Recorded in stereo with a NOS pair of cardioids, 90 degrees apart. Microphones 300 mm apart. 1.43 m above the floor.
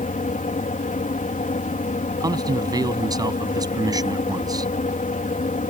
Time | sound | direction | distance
0.0 | a fan | 25° left | ?
2.2 | a man speaking | 10° right | ?